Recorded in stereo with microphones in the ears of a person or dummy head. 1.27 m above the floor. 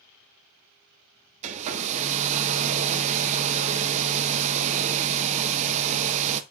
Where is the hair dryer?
40° right (ahead or behind), 0.5 m.